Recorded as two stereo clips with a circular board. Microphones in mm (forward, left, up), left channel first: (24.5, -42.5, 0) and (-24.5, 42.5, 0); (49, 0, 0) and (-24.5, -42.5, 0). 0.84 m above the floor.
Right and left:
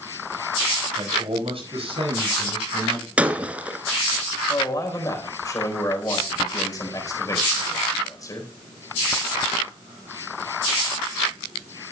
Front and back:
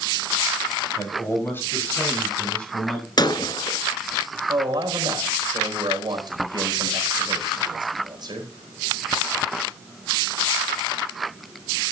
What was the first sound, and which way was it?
A man speaking, 85° left.